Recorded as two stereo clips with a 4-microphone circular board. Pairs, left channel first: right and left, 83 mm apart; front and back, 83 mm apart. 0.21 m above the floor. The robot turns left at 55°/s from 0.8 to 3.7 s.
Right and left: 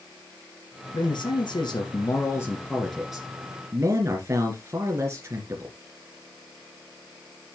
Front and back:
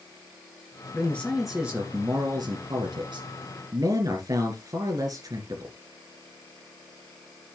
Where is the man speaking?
65° right, 3 m; by 5.7 s 145° left, 3 m.